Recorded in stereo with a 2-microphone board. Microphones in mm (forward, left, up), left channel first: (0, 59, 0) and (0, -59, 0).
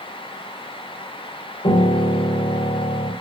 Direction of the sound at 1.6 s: 70° left (ahead or behind).